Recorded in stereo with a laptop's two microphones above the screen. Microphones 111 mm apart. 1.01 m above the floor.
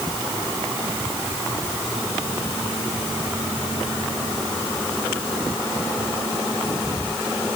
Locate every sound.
Only background noise.